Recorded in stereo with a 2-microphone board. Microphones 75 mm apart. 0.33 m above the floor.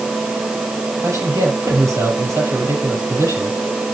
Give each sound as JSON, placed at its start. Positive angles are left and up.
{"t": 1.0, "sound": "a man speaking", "side_deg": -45, "distance_m": 6.5}